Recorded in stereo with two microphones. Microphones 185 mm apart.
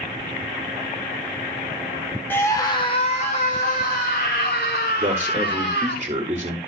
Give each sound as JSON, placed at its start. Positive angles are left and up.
{"t": 2.3, "sound": "a scream", "side_deg": 10, "distance_m": 1.1}
{"t": 5.0, "sound": "a man speaking", "side_deg": -30, "distance_m": 1.5}